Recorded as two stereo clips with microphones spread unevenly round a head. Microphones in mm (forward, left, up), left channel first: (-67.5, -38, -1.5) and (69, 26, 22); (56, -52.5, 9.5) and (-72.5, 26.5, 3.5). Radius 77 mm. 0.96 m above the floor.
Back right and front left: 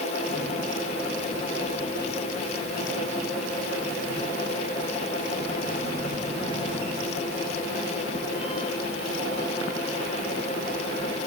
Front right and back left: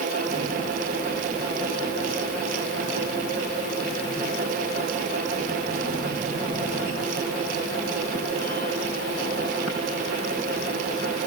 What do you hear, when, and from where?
Only background noise.